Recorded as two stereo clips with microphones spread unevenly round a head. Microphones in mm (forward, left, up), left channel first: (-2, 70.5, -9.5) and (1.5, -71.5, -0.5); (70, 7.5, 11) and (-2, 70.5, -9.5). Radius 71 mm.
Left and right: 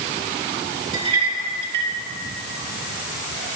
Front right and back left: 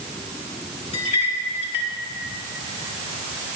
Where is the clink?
35° right, 2 m.